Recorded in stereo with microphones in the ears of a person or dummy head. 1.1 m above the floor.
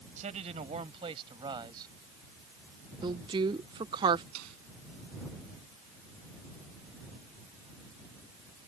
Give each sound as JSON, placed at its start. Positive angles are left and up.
{"t": 0.2, "sound": "a man speaking", "side_deg": -40}
{"t": 3.0, "sound": "a woman speaking", "side_deg": -25}
{"t": 4.3, "sound": "a snare drum", "side_deg": -75}